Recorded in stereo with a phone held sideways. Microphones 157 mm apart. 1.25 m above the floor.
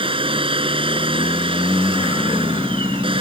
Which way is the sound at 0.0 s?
35° right (ahead or behind).